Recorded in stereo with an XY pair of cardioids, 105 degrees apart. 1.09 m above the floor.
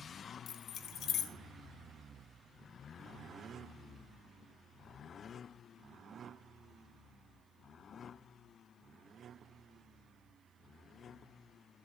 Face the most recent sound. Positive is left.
turn(degrees=70)